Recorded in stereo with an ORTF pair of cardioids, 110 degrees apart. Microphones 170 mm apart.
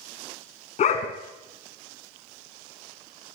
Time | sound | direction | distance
0.8 | a dog barking | 50° left | 3.5 m